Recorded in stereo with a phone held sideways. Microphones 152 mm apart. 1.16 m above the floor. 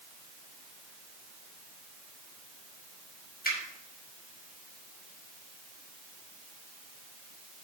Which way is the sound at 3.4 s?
85° left.